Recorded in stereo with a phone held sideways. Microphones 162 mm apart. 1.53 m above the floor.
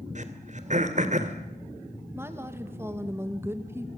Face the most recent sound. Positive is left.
turn(degrees=-15)  # may be behind; listen again after turning